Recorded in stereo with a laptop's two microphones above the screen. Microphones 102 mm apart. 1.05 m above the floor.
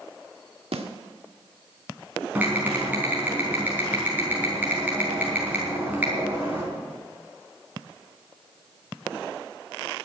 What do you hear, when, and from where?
0.7 s a snare drum: 75° right (ahead or behind), 2 m
2.4 s typing on a keyboard: 15° right (ahead or behind), 4 m